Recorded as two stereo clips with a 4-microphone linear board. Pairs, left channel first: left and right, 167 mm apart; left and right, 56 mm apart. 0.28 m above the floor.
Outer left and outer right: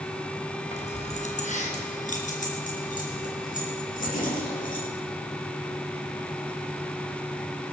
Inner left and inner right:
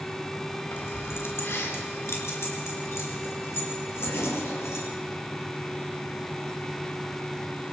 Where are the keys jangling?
40° left (ahead or behind), 2 m; by 4.8 s 55° left (ahead or behind), 6 m.